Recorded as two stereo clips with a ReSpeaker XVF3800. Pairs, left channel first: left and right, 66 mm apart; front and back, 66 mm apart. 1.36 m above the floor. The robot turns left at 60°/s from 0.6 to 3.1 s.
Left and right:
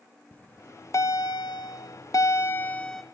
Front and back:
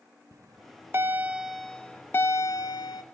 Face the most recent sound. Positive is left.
turn(degrees=0)